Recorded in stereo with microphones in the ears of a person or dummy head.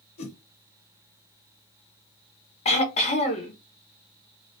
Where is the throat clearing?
30° left (ahead or behind), 0.5 m.